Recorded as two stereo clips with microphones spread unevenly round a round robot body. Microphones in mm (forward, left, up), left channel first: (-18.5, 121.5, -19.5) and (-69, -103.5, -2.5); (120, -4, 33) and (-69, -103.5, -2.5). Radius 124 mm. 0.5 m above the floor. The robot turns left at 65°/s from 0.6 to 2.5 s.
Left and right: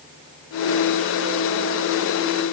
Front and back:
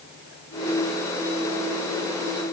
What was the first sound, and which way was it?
Only background noise.